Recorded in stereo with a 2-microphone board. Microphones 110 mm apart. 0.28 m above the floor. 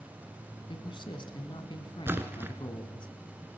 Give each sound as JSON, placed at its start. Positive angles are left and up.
{"t": 0.7, "sound": "a man speaking", "side_deg": 50, "distance_m": 2.5}
{"t": 2.1, "sound": "a splash", "side_deg": -20, "distance_m": 1.7}